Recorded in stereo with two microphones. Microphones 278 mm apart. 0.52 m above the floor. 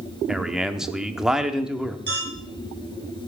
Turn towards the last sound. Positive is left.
turn(degrees=10)  # may be behind; listen again after turning